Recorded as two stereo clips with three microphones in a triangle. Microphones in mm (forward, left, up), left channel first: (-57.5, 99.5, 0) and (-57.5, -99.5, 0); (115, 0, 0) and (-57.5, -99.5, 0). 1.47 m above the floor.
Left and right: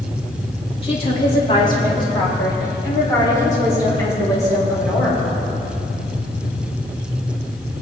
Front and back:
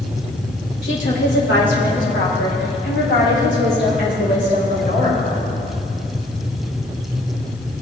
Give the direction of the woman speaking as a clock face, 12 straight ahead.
11 o'clock.